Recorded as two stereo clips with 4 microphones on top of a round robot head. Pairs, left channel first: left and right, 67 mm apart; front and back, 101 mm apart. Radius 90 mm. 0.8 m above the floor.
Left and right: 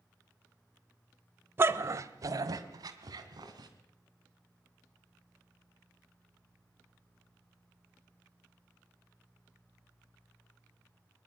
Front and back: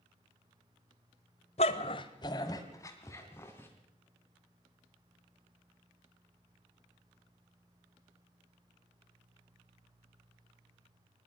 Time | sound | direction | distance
1.6 | a dog barking | 35° right | 1.1 m